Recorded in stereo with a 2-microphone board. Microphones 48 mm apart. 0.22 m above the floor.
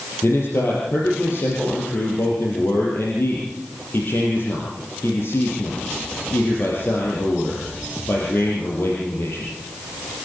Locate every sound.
0.2 s a man speaking: 55° left (ahead or behind), 5.5 m